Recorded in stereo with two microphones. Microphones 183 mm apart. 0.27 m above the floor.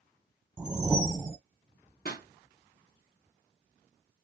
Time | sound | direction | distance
0.6 | a whoosh | 5° right (ahead or behind) | 1.3 m
2.0 | a pop | 60° left (ahead or behind) | 2.5 m